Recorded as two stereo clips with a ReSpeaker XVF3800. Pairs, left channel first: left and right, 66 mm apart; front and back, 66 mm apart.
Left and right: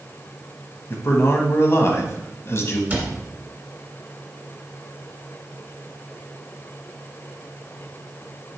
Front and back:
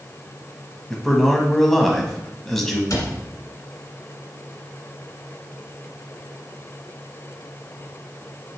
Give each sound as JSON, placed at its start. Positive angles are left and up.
{"t": 0.9, "sound": "a man speaking", "azimuth_deg": 80, "distance_m": 1.2}
{"t": 2.9, "sound": "a cupboard door", "azimuth_deg": -30, "distance_m": 1.8}